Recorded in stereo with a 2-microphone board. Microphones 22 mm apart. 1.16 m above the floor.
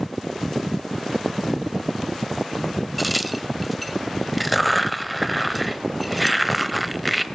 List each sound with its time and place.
3.0 s a crack: centre (ahead or behind), 1.0 m